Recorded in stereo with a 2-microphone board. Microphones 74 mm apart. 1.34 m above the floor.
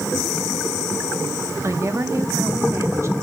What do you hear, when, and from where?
1.6 s a woman speaking: 40° right (ahead or behind), 1.1 m